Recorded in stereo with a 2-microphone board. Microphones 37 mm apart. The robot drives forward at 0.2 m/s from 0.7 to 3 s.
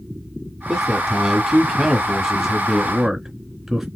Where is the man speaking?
5° right (ahead or behind), 1.3 m; by 3.9 s 10° right (ahead or behind), 1.1 m.